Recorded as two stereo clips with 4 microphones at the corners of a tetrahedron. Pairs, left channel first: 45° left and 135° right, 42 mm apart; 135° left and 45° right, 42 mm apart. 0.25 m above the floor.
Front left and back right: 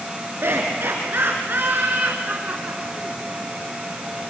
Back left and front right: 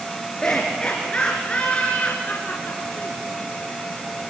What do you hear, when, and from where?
0.4 s laughter: 155° right, 3.5 m; by 3.2 s 165° left, 2.5 m